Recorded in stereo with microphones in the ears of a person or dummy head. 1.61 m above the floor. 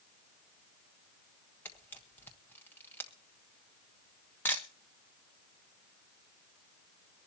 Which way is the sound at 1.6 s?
10° left (ahead or behind).